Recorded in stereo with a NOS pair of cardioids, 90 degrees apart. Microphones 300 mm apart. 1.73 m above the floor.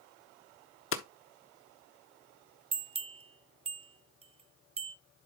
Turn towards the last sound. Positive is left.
turn(degrees=-20)